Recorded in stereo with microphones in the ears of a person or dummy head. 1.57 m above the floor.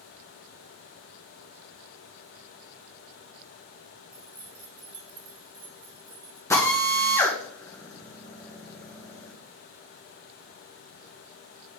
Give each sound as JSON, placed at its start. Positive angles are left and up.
{"t": 4.1, "sound": "keys jangling", "side_deg": 0, "distance_m": 1.7}
{"t": 6.5, "sound": "a drill", "side_deg": 15, "distance_m": 1.4}